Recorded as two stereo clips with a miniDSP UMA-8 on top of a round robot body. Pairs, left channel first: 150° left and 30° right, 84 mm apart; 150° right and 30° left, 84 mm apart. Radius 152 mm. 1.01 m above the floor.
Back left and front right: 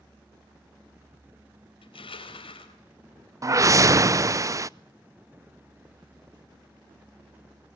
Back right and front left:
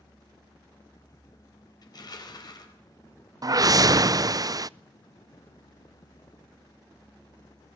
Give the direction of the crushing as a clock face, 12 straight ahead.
6 o'clock.